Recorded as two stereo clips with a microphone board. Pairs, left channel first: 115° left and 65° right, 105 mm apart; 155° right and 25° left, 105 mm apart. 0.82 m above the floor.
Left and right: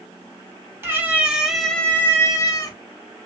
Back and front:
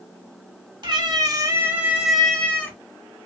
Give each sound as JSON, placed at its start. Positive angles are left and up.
{"t": 0.8, "sound": "a cat meowing", "azimuth_deg": -5, "distance_m": 1.0}